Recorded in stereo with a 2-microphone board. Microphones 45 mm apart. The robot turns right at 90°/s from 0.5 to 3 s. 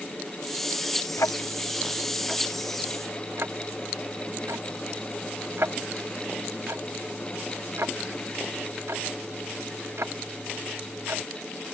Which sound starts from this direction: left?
Ticking, at 1.2 s.